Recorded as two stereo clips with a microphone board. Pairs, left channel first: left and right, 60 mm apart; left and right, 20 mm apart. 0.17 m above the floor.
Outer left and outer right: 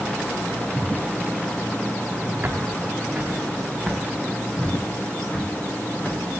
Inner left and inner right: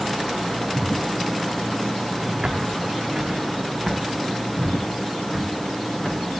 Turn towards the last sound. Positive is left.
turn(degrees=25)  # may be behind; listen again after turning